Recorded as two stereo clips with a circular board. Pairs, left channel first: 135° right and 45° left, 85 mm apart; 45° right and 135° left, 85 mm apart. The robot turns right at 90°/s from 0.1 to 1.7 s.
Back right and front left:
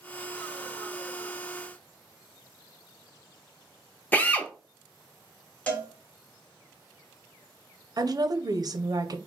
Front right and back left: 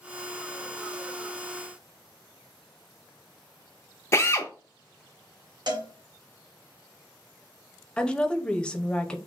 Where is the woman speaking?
30° left, 0.6 m.